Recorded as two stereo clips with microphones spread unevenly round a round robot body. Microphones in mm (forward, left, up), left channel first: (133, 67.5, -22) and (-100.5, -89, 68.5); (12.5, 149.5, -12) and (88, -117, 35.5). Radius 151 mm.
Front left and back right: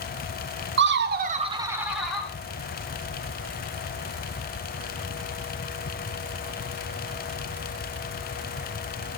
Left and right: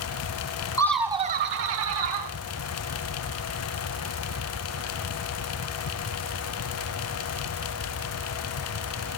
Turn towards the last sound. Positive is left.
turn(degrees=-40)